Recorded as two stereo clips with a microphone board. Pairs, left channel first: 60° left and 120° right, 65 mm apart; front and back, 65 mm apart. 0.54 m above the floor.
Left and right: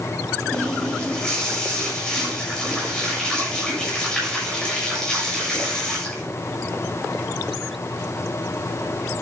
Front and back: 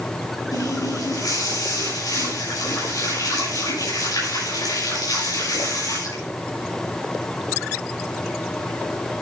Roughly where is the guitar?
No guitar in this recording.